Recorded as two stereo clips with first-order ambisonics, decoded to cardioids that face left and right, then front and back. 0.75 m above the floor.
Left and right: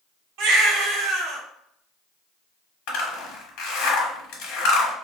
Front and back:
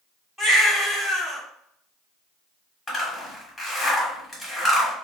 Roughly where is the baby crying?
Right.